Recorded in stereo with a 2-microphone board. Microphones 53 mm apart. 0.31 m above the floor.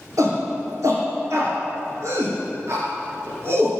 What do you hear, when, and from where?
0.2 s a shout: 75° right (ahead or behind), 4.5 m; by 3.7 s 50° right (ahead or behind), 4 m